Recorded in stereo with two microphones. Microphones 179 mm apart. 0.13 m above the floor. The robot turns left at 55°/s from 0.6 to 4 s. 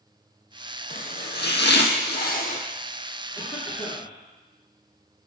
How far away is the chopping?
About 1.0 m.